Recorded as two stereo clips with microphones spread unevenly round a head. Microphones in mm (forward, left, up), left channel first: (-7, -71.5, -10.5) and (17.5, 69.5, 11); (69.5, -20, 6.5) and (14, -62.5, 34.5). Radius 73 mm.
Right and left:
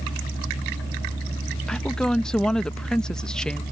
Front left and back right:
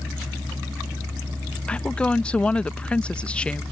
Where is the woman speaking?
20° right.